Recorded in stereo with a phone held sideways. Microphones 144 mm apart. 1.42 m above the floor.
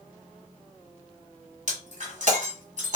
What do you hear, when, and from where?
1.7 s breaking glass: 55° right (ahead or behind), 1.6 m